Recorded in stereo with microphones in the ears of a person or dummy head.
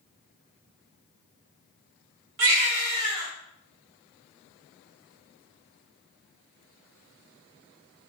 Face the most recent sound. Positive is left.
turn(degrees=-40)  # may be behind; listen again after turning